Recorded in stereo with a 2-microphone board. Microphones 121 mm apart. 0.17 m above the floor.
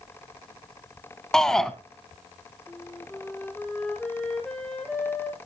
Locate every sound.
1.3 s a shout: 5° left (ahead or behind), 1.0 m
2.7 s a flute: 5° left (ahead or behind), 2 m